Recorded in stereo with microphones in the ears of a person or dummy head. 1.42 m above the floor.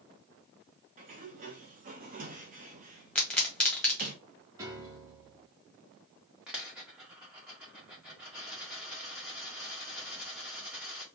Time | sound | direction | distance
1.0 | a sliding door | 35° right (ahead or behind) | 0.7 m
3.1 | a pop | 10° left (ahead or behind) | 1.4 m
4.6 | a piano | 15° right (ahead or behind) | 1.0 m
6.5 | a dropped coin | 10° right (ahead or behind) | 0.8 m